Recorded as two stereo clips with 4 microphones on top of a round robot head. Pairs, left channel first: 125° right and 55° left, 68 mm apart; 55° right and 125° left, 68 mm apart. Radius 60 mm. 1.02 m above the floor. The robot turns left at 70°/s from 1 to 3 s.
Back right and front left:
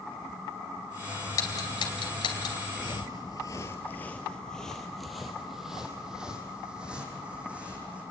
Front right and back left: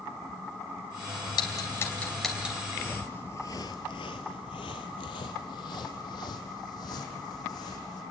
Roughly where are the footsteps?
Right.